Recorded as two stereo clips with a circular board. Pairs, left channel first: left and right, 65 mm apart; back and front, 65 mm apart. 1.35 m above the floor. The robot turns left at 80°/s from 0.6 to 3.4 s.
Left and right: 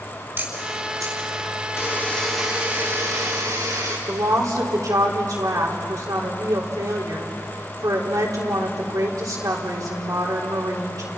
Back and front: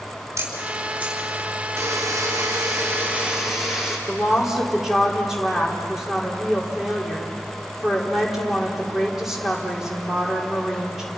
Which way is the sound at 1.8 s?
45° left.